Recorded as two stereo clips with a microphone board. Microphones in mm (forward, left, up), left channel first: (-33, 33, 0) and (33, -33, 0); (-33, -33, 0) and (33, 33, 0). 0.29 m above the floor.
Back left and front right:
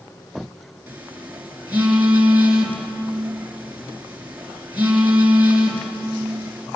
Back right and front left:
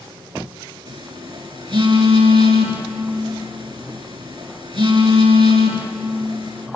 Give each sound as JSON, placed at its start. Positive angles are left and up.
{"t": 0.9, "sound": "a phone buzzing", "azimuth_deg": 25, "distance_m": 4.0}